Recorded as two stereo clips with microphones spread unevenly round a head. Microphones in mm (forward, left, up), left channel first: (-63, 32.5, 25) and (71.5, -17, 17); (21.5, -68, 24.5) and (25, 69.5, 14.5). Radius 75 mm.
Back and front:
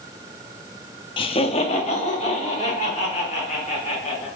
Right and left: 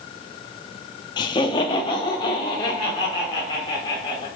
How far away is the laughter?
About 0.6 m.